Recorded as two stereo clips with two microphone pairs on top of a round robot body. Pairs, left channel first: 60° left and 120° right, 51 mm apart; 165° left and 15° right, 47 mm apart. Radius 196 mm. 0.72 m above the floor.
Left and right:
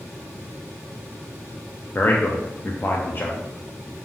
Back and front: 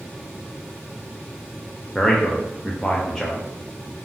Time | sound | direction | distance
1.9 | a man speaking | 85° left | 0.6 m